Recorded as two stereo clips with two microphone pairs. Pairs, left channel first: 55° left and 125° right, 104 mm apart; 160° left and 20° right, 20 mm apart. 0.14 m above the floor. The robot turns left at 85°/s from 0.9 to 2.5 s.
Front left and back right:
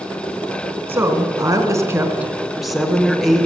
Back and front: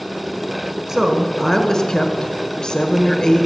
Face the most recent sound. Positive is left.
turn(degrees=150)